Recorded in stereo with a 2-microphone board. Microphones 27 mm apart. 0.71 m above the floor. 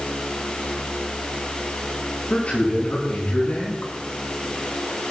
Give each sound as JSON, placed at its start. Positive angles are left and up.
{"t": 2.3, "sound": "a man speaking", "side_deg": 55, "distance_m": 7.5}